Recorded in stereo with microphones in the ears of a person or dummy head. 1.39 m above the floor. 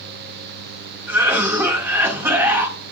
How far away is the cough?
About 1.8 m.